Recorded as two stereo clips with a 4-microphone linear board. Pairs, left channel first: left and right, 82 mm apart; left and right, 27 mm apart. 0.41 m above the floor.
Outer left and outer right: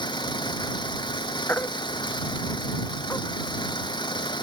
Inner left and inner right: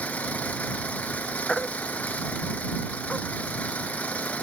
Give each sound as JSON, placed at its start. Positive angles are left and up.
{"t": 0.0, "sound": "an engine running", "side_deg": 65}
{"t": 1.5, "sound": "a baby crying", "side_deg": 25}